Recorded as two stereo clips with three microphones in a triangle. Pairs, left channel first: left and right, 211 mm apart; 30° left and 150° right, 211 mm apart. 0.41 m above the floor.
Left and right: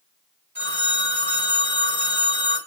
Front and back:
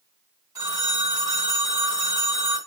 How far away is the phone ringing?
About 1.7 m.